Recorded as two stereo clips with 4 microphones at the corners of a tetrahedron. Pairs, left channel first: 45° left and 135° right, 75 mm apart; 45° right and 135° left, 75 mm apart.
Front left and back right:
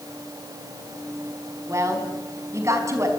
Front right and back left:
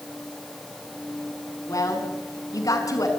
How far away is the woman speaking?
About 5 m.